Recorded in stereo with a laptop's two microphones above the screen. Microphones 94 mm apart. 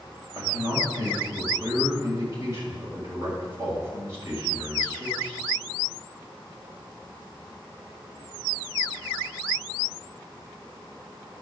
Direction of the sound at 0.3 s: 30° right (ahead or behind).